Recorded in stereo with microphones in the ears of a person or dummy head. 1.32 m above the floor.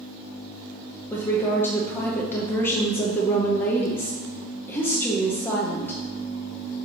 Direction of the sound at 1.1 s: 15° left (ahead or behind).